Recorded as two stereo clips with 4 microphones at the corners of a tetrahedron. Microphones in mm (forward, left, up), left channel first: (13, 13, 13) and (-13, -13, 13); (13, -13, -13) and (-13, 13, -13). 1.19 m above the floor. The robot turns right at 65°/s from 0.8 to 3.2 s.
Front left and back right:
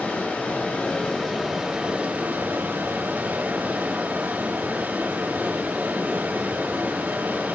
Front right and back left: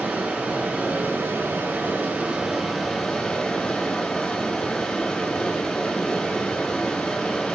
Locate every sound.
0.0 s running water: 85° left, 4.5 m; by 7.6 s 115° right, 4.5 m